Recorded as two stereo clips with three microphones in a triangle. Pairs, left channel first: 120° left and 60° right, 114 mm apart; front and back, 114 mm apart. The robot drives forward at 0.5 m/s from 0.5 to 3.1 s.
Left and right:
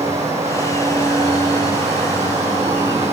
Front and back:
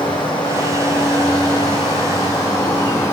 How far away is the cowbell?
I don't hear a cowbell.